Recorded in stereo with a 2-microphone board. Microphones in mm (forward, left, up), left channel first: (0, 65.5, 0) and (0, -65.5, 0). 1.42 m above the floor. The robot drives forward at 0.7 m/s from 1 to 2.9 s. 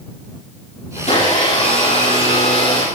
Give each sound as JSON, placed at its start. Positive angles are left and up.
{"t": 1.0, "sound": "a blender", "side_deg": 60, "distance_m": 9.5}